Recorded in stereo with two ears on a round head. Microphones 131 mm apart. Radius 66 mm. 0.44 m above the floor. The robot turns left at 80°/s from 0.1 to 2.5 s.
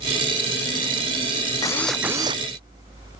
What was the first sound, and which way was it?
A drill, 25° left.